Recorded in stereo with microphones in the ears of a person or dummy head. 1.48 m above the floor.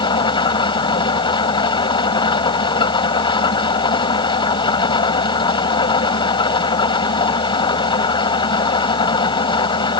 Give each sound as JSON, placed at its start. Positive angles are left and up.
{"t": 0.0, "sound": "an engine running", "side_deg": 30}